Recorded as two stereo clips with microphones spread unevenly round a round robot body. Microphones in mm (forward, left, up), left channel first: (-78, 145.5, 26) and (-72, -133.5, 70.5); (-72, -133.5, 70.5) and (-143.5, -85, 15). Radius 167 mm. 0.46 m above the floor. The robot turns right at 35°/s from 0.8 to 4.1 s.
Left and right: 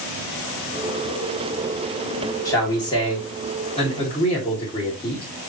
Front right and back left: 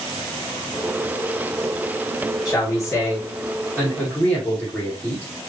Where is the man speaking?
45° left, 1.4 m; by 5.5 s 100° left, 1.4 m.